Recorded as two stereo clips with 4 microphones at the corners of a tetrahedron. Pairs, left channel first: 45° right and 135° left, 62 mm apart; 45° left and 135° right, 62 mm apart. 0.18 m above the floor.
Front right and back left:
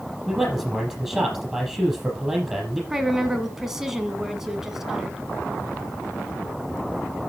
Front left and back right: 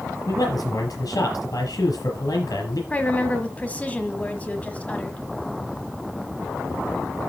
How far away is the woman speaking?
About 1.3 m.